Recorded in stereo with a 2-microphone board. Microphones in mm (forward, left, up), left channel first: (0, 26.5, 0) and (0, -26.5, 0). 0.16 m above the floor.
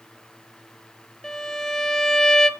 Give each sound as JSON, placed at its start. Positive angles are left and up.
{"t": 1.2, "sound": "a violin", "side_deg": 10, "distance_m": 1.0}